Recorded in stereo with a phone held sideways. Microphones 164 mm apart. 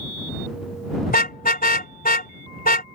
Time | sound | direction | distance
1.1 | a car horn | 75° left (ahead or behind) | ?